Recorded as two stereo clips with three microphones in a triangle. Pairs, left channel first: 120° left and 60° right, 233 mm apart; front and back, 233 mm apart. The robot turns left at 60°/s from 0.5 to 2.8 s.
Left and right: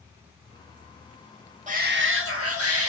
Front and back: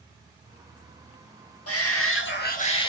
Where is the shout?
Straight ahead, 1.8 m; by 2.9 s 70° right, 1.8 m.